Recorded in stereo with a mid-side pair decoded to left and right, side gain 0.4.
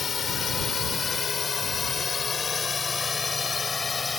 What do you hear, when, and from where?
0.0 s a drone: 50° left; by 4.2 s 30° left